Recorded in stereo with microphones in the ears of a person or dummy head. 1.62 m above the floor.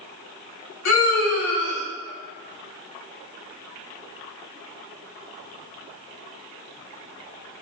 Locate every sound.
0.8 s a scream: 70° left (ahead or behind), 2.5 m